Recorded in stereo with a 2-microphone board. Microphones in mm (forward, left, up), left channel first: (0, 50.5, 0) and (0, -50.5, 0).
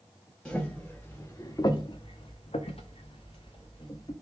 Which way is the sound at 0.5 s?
10° left (ahead or behind).